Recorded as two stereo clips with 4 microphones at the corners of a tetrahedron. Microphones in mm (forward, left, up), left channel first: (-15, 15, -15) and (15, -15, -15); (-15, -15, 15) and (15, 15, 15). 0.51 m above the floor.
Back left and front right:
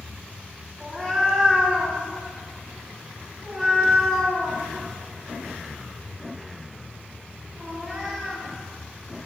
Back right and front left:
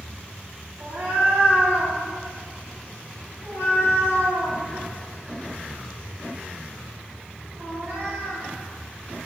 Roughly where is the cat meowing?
Ahead left.